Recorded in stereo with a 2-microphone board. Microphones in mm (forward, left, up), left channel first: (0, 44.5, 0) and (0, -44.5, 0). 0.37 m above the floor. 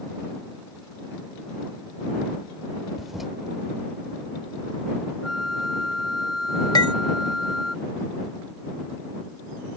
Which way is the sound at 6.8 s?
55° left (ahead or behind).